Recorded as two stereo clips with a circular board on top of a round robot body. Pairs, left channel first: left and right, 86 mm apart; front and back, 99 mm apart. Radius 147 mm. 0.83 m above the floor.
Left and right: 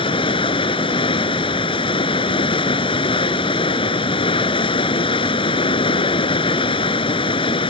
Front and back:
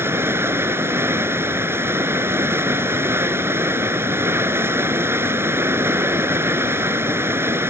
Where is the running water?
115° left.